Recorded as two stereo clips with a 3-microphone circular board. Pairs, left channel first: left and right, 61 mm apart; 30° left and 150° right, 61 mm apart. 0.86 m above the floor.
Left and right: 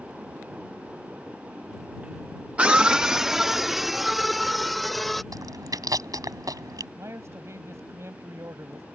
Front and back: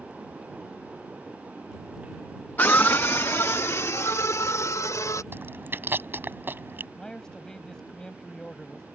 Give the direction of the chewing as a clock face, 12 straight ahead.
3 o'clock.